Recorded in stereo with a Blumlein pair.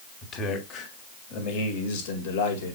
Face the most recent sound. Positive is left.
turn(degrees=65)